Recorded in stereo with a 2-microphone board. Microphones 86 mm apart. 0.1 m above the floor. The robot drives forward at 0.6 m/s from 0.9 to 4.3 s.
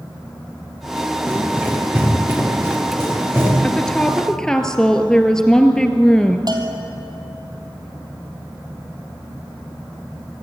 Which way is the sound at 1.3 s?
20° right (ahead or behind).